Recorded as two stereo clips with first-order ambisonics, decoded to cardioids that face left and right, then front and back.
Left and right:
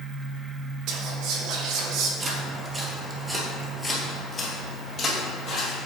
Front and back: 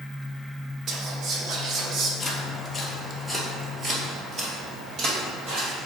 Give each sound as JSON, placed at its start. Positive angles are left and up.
{"t": 0.9, "sound": "whispering", "azimuth_deg": -125, "distance_m": 1.2}
{"t": 2.2, "sound": "footsteps", "azimuth_deg": -55, "distance_m": 1.5}